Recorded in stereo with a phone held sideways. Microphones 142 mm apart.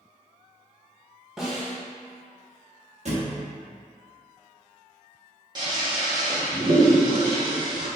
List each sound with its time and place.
1.4 s a snare drum: 5° right (ahead or behind), 1.3 m
3.0 s a thud: 55° right (ahead or behind), 0.9 m
5.5 s a toilet flushing: 30° right (ahead or behind), 1.2 m